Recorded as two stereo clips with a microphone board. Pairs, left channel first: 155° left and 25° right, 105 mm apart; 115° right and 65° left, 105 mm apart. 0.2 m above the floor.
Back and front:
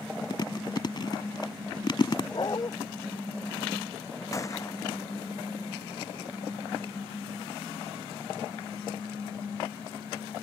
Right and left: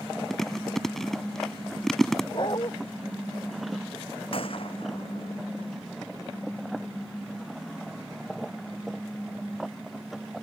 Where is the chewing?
165° left.